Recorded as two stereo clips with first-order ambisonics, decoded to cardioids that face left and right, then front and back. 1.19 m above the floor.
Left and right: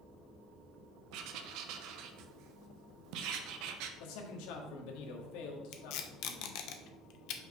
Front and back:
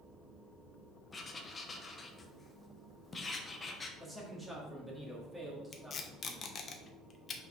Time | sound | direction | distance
1.1 | writing | 75° right | 0.8 m
4.0 | a man speaking | 100° left | 1.7 m
5.7 | tape being pulled | 65° left | 0.8 m